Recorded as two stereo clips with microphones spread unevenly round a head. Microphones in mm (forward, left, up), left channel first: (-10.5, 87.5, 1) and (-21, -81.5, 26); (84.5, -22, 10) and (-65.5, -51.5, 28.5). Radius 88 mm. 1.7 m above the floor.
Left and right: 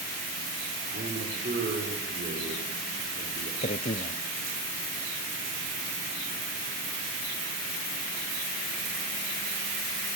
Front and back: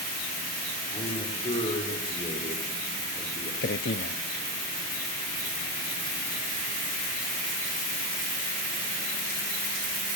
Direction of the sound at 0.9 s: 45° right.